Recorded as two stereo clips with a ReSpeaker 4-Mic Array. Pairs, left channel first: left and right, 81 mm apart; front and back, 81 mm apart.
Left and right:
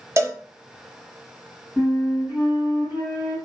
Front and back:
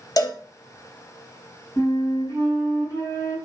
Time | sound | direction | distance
0.2 | a cowbell | 40° right | 0.5 m
1.8 | a flute | 40° right | 2 m